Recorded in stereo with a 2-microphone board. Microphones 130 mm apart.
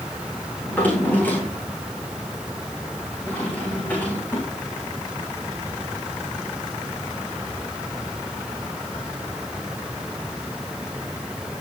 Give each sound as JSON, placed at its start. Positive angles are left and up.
{"t": 0.7, "sound": "a drawer", "side_deg": 15, "distance_m": 7.5}